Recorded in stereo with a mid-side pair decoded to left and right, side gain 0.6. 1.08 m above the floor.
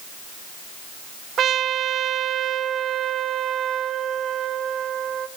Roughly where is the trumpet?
Ahead right.